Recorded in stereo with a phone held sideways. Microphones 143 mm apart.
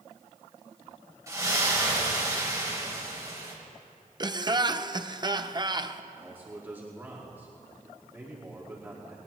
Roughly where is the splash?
Right.